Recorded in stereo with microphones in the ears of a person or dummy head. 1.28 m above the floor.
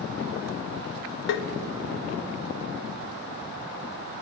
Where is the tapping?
60° left (ahead or behind), 0.6 m.